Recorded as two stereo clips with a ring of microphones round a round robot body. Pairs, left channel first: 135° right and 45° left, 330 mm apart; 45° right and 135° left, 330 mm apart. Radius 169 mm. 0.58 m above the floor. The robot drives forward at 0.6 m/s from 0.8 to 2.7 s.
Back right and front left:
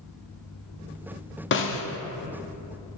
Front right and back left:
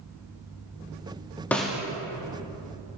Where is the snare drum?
125° right, 0.8 m; by 1.8 s 145° right, 0.9 m.